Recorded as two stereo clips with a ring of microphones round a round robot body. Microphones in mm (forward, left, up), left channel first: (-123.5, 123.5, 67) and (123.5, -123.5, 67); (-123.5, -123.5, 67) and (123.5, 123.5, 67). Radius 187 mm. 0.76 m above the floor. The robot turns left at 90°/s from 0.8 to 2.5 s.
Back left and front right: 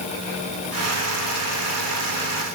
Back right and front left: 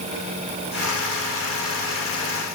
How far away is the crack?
I don't hear a crack.